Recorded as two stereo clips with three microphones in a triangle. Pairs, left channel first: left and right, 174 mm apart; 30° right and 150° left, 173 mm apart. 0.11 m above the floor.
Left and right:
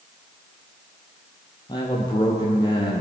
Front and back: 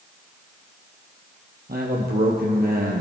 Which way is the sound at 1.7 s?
150° left.